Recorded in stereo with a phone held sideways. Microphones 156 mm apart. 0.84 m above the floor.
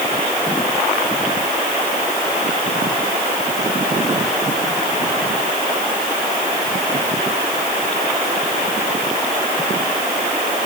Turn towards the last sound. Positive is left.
No sound to turn to.